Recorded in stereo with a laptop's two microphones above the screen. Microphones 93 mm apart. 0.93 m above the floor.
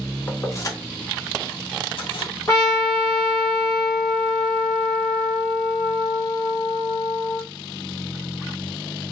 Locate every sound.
0.3 s keys jangling: 25° left (ahead or behind), 0.8 m; by 2.3 s 75° left (ahead or behind), 0.9 m
2.5 s a trumpet: 40° left (ahead or behind), 1.2 m